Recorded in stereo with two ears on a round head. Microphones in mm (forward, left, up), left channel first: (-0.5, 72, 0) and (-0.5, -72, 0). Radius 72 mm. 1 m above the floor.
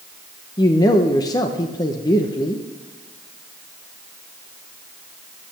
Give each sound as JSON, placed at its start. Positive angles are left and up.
{"t": 0.6, "sound": "a man speaking", "side_deg": 25, "distance_m": 0.7}